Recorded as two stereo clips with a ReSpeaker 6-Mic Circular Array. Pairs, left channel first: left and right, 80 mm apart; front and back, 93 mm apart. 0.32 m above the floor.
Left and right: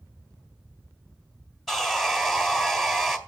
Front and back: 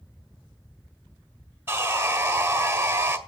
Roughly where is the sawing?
Behind.